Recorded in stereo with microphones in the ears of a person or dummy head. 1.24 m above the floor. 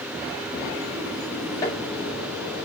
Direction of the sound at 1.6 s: 20° left (ahead or behind).